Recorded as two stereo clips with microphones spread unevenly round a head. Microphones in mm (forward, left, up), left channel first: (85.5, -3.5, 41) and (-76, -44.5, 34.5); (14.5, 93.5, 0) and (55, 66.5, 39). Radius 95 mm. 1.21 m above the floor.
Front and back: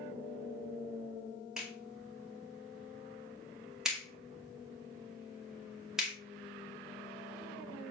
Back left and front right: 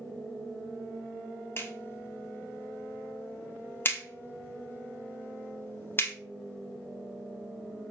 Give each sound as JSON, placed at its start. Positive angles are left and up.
{"t": 1.6, "sound": "a clap", "azimuth_deg": 110, "distance_m": 2.5}